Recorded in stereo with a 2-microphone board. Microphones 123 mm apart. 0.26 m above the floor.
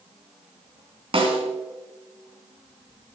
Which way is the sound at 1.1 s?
50° right (ahead or behind).